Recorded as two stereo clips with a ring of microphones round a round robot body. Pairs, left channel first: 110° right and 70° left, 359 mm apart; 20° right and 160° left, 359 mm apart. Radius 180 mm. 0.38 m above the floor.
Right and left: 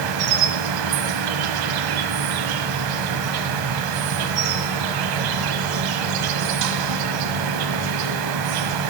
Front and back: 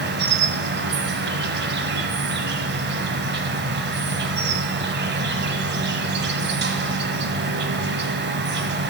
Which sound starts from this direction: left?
An insect, at 0.0 s.